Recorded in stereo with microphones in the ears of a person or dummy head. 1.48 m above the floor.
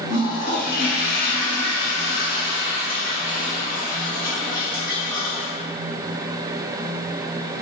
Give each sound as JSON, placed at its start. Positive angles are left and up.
{"t": 0.1, "sound": "a toilet flushing", "side_deg": 55, "distance_m": 1.1}